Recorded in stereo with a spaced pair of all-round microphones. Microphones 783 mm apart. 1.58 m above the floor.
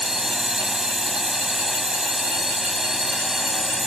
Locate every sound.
0.0 s a drone: centre (ahead or behind)